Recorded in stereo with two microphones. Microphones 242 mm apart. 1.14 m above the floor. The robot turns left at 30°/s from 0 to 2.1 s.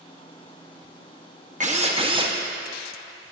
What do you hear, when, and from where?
1.6 s a drill: 30° right (ahead or behind), 0.7 m; by 2.4 s 20° right (ahead or behind), 0.7 m